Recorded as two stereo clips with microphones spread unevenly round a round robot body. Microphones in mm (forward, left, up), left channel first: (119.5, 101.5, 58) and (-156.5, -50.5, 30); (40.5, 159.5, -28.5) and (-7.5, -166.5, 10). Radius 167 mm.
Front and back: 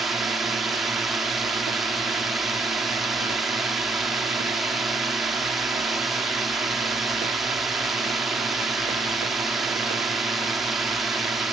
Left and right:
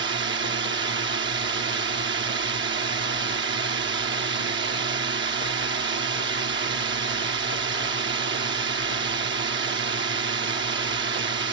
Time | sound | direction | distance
0.0 | a drone | 75° right | ?